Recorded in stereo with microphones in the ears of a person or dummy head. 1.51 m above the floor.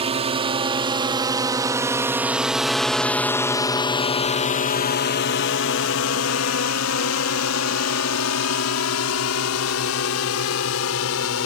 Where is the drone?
30° right (ahead or behind); by 11.5 s 85° left.